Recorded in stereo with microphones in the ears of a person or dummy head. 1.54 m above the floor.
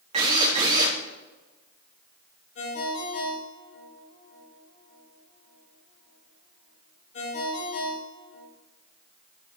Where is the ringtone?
55° left (ahead or behind), 4 m.